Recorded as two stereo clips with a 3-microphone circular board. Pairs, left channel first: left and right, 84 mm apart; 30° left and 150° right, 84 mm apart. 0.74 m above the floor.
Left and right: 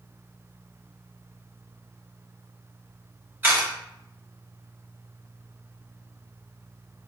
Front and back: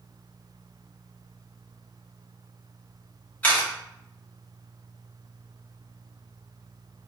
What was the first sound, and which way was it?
A camera shutter, 40° right.